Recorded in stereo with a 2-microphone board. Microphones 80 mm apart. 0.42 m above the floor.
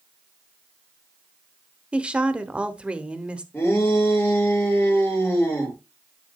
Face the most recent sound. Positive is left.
turn(degrees=25)  # may be behind; listen again after turning